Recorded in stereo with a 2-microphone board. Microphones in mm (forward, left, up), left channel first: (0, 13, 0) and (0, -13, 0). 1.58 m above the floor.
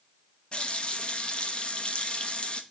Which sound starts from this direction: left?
A running tap, at 0.5 s.